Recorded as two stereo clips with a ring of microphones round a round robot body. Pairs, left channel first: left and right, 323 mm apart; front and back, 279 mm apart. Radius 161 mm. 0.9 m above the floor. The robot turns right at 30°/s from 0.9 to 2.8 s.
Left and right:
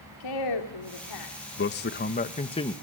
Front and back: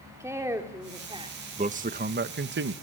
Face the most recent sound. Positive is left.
turn(degrees=165)